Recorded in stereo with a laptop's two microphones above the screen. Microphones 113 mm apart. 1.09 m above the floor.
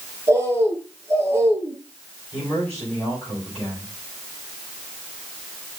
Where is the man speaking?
10° left (ahead or behind), 7.5 m.